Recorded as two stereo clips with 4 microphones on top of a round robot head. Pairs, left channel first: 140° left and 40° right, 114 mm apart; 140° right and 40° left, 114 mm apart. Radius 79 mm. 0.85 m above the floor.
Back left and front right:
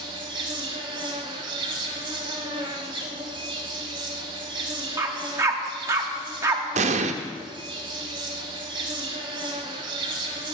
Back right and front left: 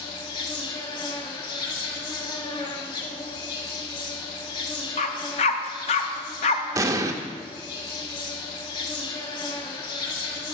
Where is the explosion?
20° right, 0.5 m.